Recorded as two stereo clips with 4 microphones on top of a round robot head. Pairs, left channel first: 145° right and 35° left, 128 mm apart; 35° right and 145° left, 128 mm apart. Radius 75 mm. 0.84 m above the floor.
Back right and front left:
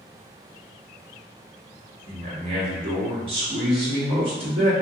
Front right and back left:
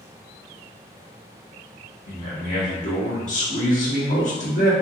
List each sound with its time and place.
2.1 s a man speaking: 10° right, 1.0 m